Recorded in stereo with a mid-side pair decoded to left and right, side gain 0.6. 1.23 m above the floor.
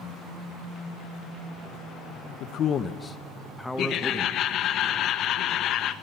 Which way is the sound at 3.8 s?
55° left.